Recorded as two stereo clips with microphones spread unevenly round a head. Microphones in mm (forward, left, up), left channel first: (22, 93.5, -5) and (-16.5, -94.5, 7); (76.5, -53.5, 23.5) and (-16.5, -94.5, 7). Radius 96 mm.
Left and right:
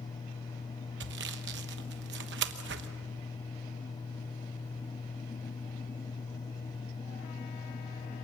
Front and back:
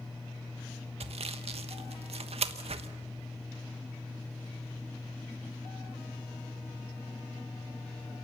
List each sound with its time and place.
1.0 s sawing: 135° right, 1.2 m